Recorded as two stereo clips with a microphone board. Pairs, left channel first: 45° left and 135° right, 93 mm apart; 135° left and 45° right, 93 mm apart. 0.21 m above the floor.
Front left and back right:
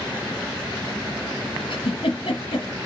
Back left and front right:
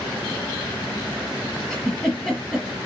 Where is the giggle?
55° left, 4 m.